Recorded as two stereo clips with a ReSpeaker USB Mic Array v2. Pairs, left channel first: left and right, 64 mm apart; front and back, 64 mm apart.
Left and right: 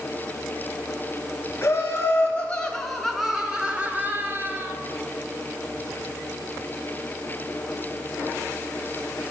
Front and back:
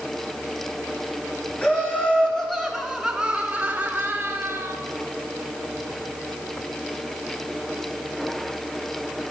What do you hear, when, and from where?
1.6 s laughter: 55° left, 1.4 m; by 4.7 s 135° right, 1.7 m